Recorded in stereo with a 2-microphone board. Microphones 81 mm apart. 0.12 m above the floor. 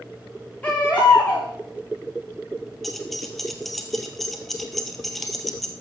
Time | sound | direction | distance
0.6 | a baby crying | 20° left (ahead or behind) | 6.5 m
2.8 | keys jangling | centre (ahead or behind) | 1.7 m